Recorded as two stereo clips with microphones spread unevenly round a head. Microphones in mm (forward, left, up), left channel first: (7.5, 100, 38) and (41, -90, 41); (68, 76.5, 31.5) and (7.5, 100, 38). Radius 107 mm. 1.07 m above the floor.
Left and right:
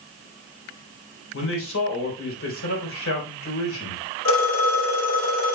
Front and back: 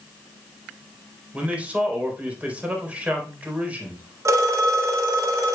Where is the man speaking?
90° left, 3.5 m.